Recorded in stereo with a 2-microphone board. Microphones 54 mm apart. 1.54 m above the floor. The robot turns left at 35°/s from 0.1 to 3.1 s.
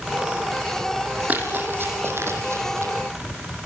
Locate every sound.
1.3 s running footsteps: 35° right (ahead or behind), 4.5 m; by 2.9 s 70° right (ahead or behind), 5 m